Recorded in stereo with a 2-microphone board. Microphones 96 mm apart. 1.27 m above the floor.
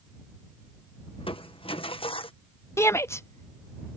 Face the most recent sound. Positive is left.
turn(degrees=30)  # may be behind; listen again after turning